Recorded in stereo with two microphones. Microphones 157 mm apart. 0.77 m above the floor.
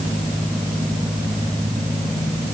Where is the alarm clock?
No alarm clock in this recording.